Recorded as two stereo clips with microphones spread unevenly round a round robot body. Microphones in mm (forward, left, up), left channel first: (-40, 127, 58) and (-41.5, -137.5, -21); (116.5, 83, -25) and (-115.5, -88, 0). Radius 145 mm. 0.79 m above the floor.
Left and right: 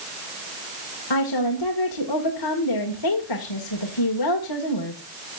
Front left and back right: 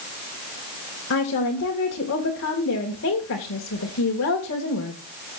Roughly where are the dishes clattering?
No dishes clattering in this recording.